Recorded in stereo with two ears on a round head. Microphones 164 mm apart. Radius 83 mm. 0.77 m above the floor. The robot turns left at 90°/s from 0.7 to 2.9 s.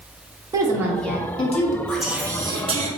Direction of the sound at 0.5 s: 155° right.